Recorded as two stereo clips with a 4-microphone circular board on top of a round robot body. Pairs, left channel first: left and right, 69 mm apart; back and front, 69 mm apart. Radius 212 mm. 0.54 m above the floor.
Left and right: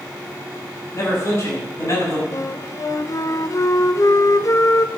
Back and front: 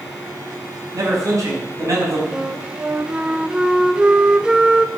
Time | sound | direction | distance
0.9 | a man speaking | 40° left | 5.5 m
2.3 | a flute | 75° left | 1.1 m